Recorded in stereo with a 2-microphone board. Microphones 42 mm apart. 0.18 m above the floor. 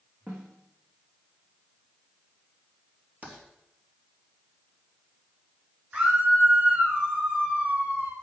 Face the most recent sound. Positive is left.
turn(degrees=-35)  # may be behind; listen again after turning